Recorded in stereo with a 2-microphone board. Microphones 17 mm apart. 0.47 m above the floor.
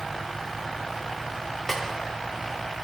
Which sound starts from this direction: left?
A snare drum, at 1.7 s.